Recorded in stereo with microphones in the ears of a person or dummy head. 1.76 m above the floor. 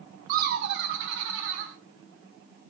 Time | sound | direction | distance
0.3 | laughter | 45° right (ahead or behind) | 0.6 m